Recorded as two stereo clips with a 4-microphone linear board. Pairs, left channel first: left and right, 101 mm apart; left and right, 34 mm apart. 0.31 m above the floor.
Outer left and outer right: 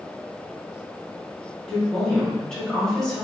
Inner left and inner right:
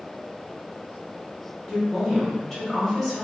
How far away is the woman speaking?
About 1.2 m.